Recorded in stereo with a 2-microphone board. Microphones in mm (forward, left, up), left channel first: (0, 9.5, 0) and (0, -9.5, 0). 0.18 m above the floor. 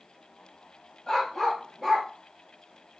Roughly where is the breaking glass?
I don't hear breaking glass.